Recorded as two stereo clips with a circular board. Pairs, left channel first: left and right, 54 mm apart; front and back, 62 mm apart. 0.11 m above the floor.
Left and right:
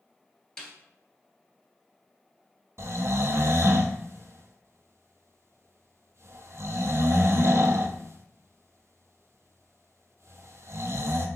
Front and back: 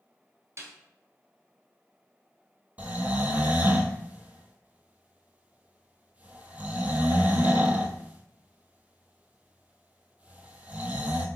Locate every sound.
0.6 s a snare drum: 165° left, 1.4 m
2.8 s snoring: 115° right, 0.5 m